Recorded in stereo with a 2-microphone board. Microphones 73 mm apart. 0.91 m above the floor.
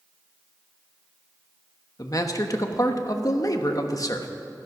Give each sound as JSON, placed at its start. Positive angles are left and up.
{"t": 2.0, "sound": "a man speaking", "side_deg": 50, "distance_m": 1.1}